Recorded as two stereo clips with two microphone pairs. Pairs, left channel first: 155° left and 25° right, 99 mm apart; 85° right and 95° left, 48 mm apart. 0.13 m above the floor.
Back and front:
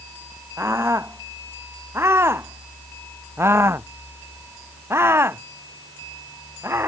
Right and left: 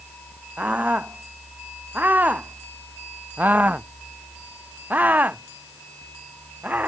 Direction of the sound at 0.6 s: 40° left.